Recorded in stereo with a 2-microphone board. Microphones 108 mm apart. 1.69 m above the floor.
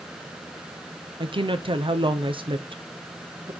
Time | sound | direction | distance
1.2 | a woman speaking | 55° right (ahead or behind) | 1.0 m